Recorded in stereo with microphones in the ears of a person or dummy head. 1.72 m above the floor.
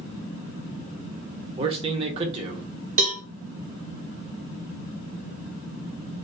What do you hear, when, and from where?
1.6 s a man speaking: 30° right (ahead or behind), 1.2 m
3.0 s a cowbell: 45° right (ahead or behind), 1.0 m